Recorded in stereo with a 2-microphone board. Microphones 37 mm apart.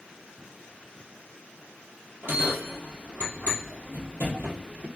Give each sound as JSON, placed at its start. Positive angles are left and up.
{"t": 2.2, "sound": "a bell", "side_deg": -80, "distance_m": 1.6}